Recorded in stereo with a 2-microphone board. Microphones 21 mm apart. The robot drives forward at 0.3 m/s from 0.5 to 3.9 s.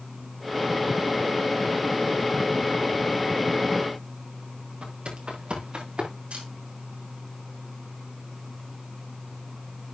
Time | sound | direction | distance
4.8 | footsteps | 60° right (ahead or behind) | 5.5 m
6.3 | a camera shutter | 75° right (ahead or behind) | 5.5 m